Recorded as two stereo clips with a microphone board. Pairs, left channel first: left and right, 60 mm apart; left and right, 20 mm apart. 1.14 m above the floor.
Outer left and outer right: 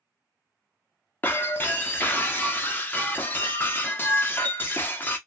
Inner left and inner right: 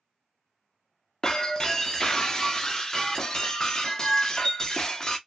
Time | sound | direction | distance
1.2 | breaking glass | 35° left (ahead or behind) | 0.6 m